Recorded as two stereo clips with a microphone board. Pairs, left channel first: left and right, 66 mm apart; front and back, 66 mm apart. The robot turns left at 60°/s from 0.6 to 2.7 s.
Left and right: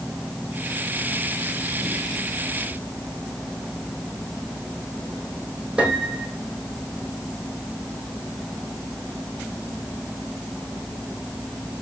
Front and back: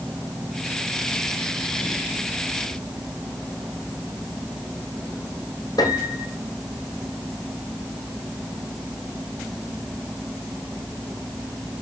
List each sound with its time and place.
5.8 s a piano: 15° right, 3 m